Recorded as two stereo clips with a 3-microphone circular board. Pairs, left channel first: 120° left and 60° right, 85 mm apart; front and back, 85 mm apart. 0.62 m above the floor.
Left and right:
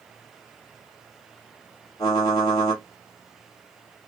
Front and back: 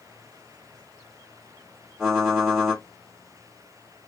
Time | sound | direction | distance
2.0 | typing on a keyboard | 95° left | 1.7 m